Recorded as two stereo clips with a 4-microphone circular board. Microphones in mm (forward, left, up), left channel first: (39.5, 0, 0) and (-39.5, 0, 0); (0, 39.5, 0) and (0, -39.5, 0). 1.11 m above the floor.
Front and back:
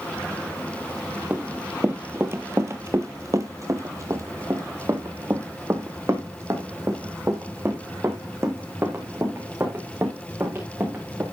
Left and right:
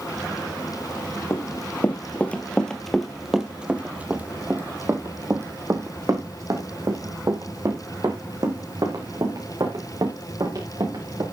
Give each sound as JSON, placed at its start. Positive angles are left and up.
{"t": 1.3, "sound": "running footsteps", "azimuth_deg": 120, "distance_m": 1.5}